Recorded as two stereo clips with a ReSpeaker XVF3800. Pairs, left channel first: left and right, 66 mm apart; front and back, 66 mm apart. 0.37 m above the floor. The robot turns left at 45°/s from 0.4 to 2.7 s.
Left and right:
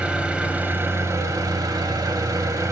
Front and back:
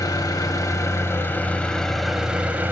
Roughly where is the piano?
I don't hear a piano.